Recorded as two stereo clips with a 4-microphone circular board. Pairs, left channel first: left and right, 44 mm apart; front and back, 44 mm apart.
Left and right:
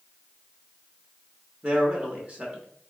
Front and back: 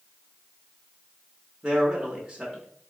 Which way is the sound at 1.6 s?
115° right.